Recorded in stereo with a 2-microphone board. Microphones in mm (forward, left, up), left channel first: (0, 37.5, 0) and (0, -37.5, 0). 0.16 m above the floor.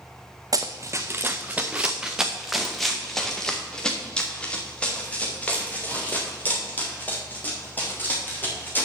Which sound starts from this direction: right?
Running footsteps, at 0.5 s.